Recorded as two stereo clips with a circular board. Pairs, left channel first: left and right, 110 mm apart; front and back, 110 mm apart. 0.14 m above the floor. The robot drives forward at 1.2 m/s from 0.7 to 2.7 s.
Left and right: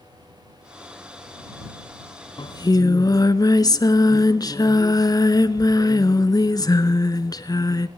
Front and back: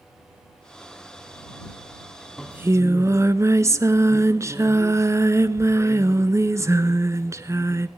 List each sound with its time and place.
2.4 s singing: 85° left, 0.7 m; by 7.9 s 130° left, 0.8 m